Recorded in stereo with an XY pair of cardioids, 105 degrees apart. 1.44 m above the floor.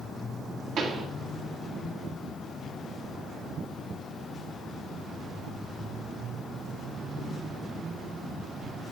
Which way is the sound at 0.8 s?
65° right.